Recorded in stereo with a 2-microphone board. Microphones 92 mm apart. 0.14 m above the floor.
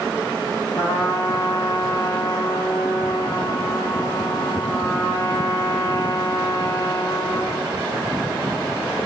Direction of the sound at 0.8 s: 35° left (ahead or behind).